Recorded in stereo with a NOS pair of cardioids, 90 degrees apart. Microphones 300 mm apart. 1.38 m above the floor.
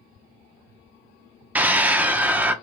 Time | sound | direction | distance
1.6 | a scream | 5° right | 0.6 m